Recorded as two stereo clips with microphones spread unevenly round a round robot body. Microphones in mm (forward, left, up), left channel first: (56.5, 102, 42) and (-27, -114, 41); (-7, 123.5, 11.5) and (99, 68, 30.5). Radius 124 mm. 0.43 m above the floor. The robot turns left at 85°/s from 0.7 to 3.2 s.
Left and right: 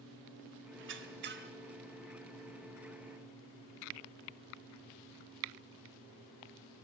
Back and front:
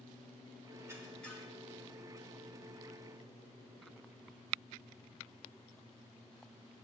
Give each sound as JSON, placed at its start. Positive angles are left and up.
{"t": 0.8, "sound": "a squeak", "azimuth_deg": -95, "distance_m": 0.5}